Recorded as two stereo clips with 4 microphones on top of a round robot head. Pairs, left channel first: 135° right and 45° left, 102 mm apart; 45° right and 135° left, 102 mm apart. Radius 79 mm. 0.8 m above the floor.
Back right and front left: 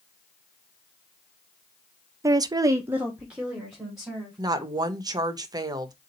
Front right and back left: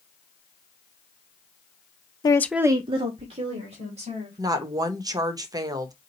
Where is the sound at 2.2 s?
10° right, 0.6 m; by 4.4 s 130° left, 2.5 m.